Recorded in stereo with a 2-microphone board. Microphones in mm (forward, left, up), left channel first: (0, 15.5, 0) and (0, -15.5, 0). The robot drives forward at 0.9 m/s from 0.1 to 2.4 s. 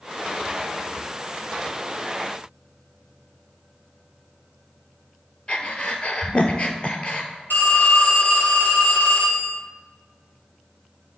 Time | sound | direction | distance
5.5 | breathing | 40° left (ahead or behind) | 0.7 m
7.5 | a phone ringing | 70° left (ahead or behind) | 2.5 m